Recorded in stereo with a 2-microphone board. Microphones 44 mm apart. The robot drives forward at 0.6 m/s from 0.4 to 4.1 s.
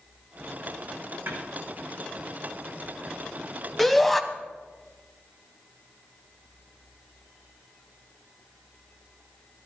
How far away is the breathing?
I don't hear breathing.